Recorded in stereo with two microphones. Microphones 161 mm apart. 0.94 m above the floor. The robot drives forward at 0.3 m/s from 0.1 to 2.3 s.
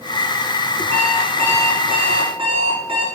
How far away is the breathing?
No breathing in this recording.